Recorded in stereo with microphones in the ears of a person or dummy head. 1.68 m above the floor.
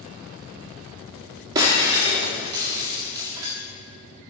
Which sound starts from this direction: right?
Breaking glass, at 1.6 s.